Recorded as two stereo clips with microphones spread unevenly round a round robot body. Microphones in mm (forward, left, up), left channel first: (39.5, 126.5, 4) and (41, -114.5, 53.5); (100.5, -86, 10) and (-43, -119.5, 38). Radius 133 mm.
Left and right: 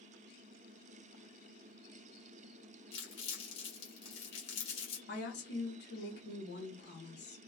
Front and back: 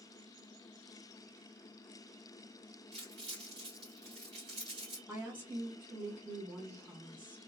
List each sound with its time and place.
2.9 s crumpling: 140° left, 1.4 m
5.1 s a woman speaking: 105° left, 1.1 m